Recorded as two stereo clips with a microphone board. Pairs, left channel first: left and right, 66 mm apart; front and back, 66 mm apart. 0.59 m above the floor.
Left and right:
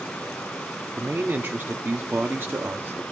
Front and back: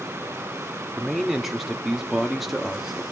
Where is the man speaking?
95° right, 1.1 m.